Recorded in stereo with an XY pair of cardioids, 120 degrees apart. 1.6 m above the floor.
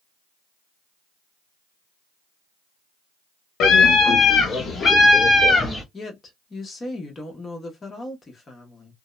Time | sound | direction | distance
3.6 | a scream | 65° left | 1.1 m
5.9 | a woman speaking | 30° left | 1.1 m